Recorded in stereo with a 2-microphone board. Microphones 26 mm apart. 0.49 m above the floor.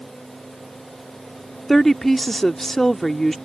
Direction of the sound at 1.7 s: 15° left (ahead or behind).